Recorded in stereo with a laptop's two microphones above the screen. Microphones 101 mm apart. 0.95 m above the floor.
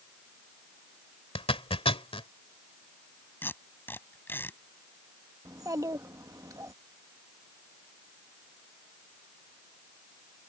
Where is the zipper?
70° left (ahead or behind).